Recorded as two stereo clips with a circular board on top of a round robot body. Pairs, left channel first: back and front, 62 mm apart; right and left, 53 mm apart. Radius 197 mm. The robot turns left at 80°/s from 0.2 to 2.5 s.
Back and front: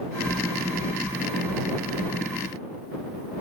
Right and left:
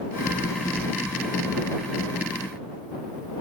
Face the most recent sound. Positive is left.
No sound to turn to.